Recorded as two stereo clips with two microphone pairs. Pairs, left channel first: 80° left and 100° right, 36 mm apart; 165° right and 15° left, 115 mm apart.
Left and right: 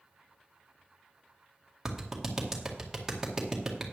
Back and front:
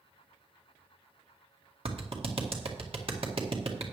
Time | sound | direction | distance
1.9 | a clap | 20° right | 1.8 m